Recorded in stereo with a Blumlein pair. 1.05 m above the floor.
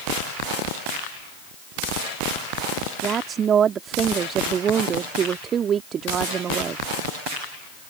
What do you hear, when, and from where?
3.0 s a woman speaking: 25° right